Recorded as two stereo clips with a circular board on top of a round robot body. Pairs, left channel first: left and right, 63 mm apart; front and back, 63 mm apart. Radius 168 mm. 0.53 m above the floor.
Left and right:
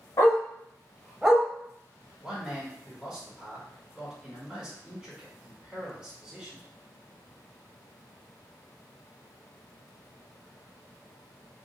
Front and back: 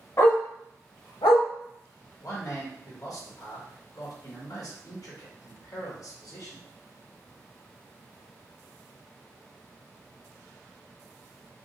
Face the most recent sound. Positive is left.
turn(degrees=-5)